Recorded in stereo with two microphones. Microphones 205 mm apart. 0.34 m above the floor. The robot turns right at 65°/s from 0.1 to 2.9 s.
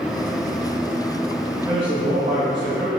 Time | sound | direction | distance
1.6 | a man speaking | 155° right | 1.6 m